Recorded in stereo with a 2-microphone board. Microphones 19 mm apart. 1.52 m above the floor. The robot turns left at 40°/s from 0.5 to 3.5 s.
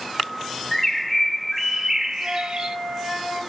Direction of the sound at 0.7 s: 25° left.